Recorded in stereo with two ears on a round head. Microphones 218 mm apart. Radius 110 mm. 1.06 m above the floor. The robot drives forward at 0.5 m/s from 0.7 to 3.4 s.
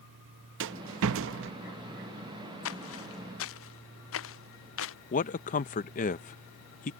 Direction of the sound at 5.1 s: 35° left (ahead or behind).